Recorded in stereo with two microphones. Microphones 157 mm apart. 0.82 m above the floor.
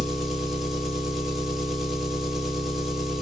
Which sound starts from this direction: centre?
An engine running, at 0.0 s.